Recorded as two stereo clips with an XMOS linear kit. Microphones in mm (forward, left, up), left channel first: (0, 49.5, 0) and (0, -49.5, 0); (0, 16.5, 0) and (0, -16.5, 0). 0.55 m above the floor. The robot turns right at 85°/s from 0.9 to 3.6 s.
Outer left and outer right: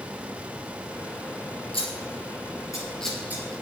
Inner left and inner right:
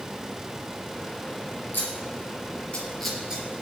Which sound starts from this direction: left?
Scissors, at 1.7 s.